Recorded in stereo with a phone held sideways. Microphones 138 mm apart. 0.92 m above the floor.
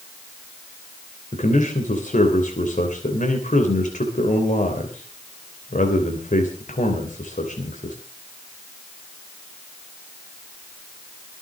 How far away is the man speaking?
About 3 m.